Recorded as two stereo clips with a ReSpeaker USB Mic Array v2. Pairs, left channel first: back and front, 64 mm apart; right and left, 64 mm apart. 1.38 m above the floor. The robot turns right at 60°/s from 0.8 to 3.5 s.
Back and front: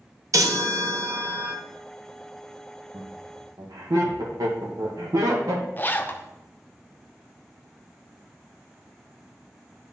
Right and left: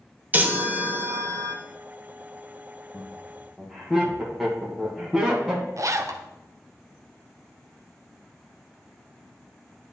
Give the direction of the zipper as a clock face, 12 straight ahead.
8 o'clock.